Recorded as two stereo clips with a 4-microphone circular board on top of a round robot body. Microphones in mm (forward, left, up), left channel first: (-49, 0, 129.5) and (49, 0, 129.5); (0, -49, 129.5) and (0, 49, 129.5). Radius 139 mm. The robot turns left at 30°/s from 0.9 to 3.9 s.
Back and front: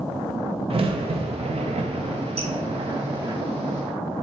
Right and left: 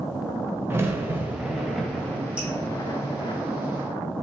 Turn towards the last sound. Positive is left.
turn(degrees=-35)